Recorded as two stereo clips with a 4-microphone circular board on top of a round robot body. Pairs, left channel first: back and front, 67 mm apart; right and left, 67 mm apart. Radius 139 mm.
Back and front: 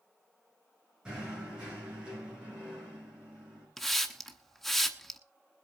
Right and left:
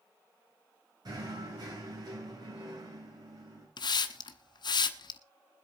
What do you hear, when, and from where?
1.1 s knocking: 75° left, 8.5 m
3.8 s a hiss: 90° right, 0.9 m